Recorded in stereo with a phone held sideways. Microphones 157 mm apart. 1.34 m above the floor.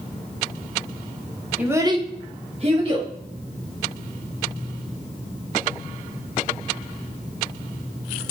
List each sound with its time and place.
1.6 s a child speaking: 10° right (ahead or behind), 0.9 m; by 3.1 s 30° right (ahead or behind), 1.4 m